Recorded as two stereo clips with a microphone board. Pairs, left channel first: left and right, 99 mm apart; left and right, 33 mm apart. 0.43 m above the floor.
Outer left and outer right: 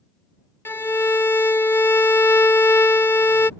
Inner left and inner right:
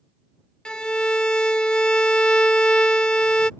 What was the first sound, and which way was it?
A violin, 20° left (ahead or behind).